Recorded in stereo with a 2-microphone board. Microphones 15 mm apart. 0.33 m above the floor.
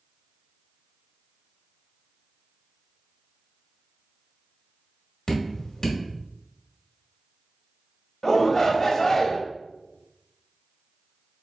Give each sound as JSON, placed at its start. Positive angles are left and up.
{"t": 5.3, "sound": "dripping", "side_deg": 40, "distance_m": 1.4}
{"t": 8.2, "sound": "a shout", "side_deg": 35, "distance_m": 1.2}